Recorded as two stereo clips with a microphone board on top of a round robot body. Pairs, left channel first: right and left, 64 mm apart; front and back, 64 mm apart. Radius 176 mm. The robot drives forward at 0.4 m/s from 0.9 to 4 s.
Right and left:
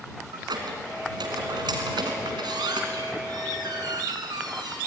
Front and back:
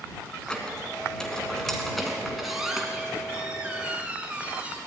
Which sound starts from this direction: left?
A squeak, at 0.3 s.